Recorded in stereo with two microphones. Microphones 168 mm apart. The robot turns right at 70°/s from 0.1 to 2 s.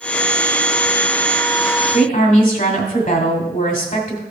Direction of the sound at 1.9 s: 55° left (ahead or behind).